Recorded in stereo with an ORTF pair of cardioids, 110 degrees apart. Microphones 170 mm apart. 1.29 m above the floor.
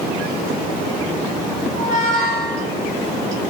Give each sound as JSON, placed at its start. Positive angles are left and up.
{"t": 1.7, "sound": "a squeak", "azimuth_deg": -25, "distance_m": 2.5}